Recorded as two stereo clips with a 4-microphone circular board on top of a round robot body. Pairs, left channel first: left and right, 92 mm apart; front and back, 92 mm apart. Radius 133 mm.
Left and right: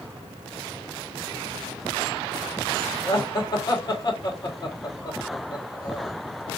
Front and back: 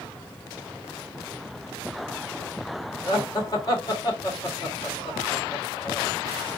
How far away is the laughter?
About 1.9 m.